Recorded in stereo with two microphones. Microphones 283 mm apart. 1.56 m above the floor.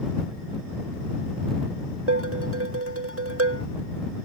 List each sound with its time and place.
2.1 s dishes clattering: 50° right (ahead or behind)